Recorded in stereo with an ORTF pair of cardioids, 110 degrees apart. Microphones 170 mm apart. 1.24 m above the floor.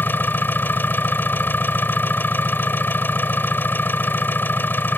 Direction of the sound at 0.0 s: 10° left.